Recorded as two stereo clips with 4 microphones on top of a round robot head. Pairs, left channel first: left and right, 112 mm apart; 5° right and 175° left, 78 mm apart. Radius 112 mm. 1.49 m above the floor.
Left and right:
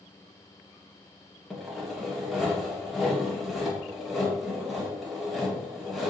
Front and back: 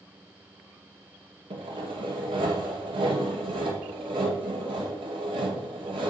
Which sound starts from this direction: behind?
Sawing, at 1.5 s.